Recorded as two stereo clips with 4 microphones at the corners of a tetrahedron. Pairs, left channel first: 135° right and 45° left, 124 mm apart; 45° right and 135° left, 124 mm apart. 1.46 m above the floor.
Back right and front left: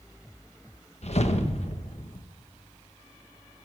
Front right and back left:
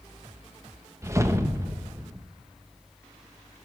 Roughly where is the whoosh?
Behind.